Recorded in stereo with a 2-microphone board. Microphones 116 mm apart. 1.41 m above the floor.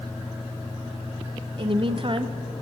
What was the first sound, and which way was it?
A woman speaking, 50° right (ahead or behind).